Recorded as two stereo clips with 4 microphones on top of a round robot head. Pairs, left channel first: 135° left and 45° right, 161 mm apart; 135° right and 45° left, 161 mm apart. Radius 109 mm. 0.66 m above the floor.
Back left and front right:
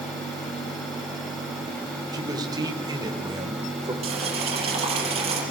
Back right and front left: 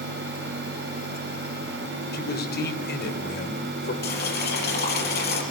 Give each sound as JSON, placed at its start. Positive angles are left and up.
{"t": 2.1, "sound": "a man speaking", "azimuth_deg": -115, "distance_m": 3.5}
{"t": 4.0, "sound": "boiling", "azimuth_deg": -100, "distance_m": 5.0}